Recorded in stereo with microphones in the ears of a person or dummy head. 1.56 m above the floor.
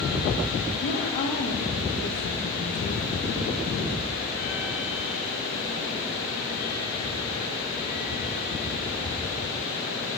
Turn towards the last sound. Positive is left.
turn(degrees=75)  # may be behind; listen again after turning